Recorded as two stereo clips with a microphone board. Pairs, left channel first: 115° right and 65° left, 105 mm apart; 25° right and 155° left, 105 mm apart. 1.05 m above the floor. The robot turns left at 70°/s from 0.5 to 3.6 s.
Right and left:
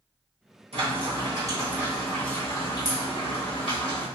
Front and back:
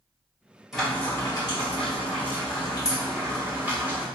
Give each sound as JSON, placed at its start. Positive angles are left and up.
{"t": 0.7, "sound": "frying", "azimuth_deg": 70, "distance_m": 1.4}